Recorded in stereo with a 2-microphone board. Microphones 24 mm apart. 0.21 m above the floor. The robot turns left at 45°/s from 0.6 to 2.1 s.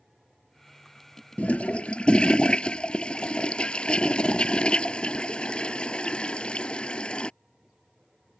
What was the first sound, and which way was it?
A toilet flushing, 80° left.